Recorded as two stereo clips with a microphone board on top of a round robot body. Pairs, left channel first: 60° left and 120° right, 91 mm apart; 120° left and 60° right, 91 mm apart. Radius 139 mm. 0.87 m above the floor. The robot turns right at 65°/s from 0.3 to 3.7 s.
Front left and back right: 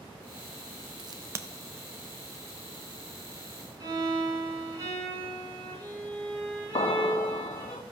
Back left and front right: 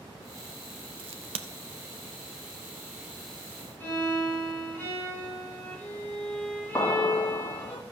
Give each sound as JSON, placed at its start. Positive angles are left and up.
{"t": 1.0, "sound": "a crack", "azimuth_deg": -85, "distance_m": 0.6}
{"t": 3.8, "sound": "a violin", "azimuth_deg": -175, "distance_m": 7.0}
{"t": 6.8, "sound": "an explosion", "azimuth_deg": 70, "distance_m": 0.7}